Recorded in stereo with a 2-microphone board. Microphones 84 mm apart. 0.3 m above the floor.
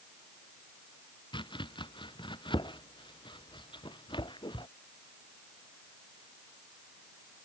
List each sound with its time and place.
1.3 s chopping: 70° left (ahead or behind)